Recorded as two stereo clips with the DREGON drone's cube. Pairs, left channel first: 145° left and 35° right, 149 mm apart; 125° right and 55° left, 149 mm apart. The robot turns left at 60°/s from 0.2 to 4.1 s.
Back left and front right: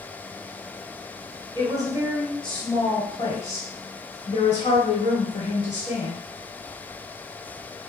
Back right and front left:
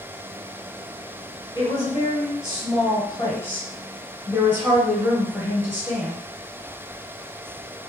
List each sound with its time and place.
1.6 s a woman speaking: 80° right, 1.6 m; by 6.2 s 130° left, 1.6 m